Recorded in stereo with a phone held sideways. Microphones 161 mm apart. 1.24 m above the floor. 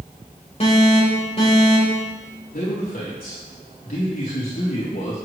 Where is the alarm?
40° left (ahead or behind), 4 m.